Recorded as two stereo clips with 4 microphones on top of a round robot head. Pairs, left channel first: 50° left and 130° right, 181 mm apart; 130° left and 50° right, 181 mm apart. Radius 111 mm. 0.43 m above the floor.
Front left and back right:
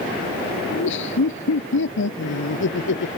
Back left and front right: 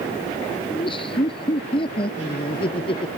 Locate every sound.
0.7 s laughter: 65° left; by 3.1 s 70° left